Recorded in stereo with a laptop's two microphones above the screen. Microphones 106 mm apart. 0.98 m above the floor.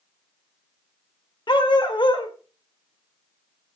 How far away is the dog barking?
About 1.5 m.